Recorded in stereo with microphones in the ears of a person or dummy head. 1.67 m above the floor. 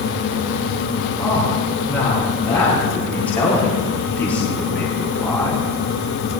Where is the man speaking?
Centre (ahead or behind), 5 m.